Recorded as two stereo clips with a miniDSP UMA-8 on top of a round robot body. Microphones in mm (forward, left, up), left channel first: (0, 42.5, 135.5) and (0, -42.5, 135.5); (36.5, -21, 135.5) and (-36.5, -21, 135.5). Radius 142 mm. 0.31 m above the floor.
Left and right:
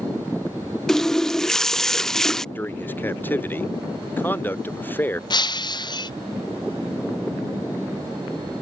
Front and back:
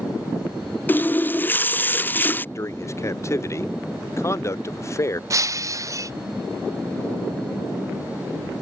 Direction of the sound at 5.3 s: 130° left.